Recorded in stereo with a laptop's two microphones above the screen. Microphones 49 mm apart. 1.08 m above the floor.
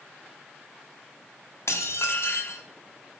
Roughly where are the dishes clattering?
Left.